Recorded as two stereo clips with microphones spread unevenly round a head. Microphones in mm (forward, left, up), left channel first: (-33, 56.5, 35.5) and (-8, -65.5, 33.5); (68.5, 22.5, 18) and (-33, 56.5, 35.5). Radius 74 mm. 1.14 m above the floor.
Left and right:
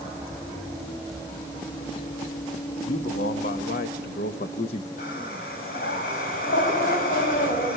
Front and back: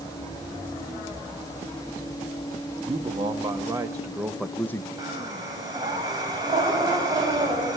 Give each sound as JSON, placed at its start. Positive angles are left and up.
{"t": 2.9, "sound": "a man speaking", "azimuth_deg": 120, "distance_m": 1.7}
{"t": 5.0, "sound": "breathing", "azimuth_deg": 110, "distance_m": 4.5}